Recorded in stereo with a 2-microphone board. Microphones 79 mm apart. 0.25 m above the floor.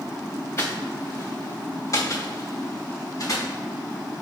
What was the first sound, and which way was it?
Footsteps, 35° left (ahead or behind).